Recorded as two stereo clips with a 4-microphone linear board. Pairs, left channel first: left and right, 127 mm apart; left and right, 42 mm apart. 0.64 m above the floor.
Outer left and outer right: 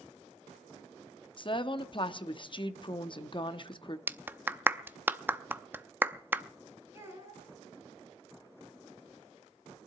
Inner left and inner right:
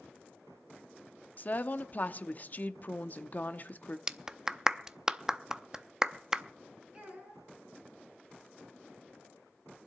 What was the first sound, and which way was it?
A woman speaking, 40° left (ahead or behind).